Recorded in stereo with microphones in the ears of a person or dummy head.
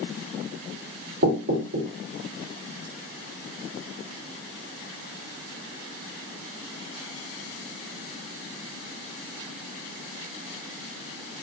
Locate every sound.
1.2 s knocking: 75° right (ahead or behind), 2 m